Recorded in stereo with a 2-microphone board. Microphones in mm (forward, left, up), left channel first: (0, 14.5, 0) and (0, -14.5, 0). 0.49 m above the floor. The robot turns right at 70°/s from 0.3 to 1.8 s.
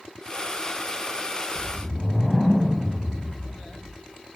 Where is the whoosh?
25° left (ahead or behind), 0.9 m; by 4.0 s 5° left (ahead or behind), 0.9 m.